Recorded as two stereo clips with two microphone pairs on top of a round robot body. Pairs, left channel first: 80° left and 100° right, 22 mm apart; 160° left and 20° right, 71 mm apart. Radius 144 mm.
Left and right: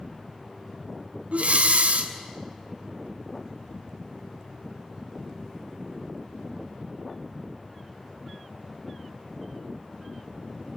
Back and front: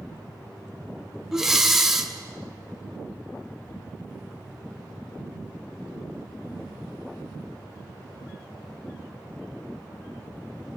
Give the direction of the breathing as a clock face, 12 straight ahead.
3 o'clock.